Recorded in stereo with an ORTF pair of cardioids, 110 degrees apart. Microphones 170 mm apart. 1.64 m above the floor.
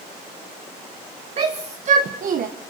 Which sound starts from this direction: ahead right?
A shout, at 1.4 s.